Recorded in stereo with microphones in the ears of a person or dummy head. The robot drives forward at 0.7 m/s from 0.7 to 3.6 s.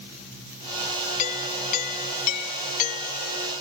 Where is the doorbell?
45° left (ahead or behind); by 3.5 s 50° left (ahead or behind).